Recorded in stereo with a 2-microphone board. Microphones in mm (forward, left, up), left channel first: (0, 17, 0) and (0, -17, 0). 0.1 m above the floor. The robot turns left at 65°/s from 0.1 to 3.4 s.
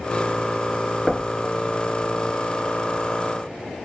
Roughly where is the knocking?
Centre.